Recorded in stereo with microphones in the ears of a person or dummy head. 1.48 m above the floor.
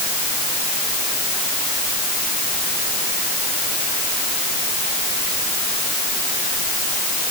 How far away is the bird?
I don't hear a bird.